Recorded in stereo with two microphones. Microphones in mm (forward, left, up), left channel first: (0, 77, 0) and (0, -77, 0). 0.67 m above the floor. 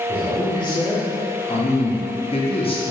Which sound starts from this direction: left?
A man speaking, at 0.1 s.